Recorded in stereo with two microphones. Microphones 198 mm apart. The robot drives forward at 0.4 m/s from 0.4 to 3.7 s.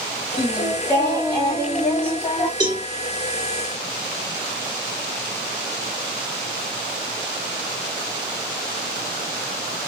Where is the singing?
10° left (ahead or behind), 3 m.